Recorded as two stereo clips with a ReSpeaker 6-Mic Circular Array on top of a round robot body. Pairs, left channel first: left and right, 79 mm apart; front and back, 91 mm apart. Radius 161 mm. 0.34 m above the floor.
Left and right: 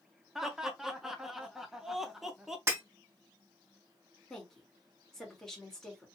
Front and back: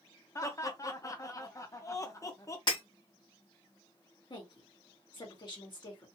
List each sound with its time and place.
0.3 s laughter: 10° right, 1.0 m
2.7 s breaking glass: 30° right, 2 m
4.3 s a woman speaking: 5° left, 2 m